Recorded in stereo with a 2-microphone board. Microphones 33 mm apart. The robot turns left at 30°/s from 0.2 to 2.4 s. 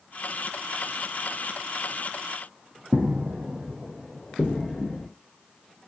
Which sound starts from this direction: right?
Footsteps, at 2.9 s.